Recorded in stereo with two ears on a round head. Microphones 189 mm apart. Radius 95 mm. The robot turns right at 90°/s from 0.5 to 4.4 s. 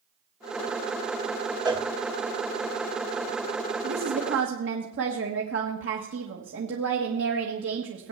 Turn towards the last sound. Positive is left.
turn(degrees=-70)